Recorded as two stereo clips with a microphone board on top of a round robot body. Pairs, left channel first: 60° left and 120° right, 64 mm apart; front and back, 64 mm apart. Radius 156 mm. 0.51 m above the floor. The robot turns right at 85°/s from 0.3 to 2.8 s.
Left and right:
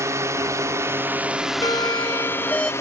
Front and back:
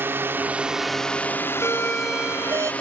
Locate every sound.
0.0 s a drone: 135° right; by 2.8 s 60° left
1.6 s a doorbell: 50° left; by 2.7 s 140° left